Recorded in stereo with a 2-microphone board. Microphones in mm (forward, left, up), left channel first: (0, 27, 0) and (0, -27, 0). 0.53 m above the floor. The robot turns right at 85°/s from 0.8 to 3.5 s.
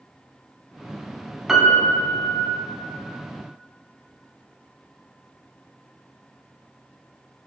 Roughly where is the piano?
Ahead.